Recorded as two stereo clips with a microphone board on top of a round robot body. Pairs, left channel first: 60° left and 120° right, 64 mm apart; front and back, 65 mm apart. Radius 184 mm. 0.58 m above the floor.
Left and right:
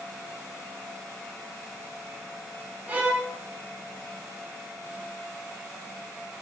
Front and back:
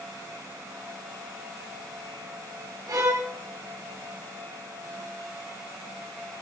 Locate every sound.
2.9 s a violin: 175° left, 2 m